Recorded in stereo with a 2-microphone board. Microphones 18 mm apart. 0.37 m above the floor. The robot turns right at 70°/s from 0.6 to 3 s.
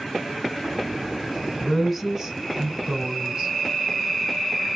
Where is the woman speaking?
160° left, 2 m; by 3.5 s 105° right, 2 m.